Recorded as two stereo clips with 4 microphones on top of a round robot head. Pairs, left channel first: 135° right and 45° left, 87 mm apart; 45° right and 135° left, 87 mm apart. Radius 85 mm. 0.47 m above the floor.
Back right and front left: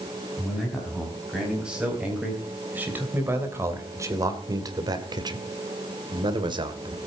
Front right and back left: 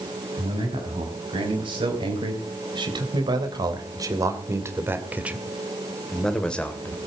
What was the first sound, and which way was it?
A man speaking, 130° left.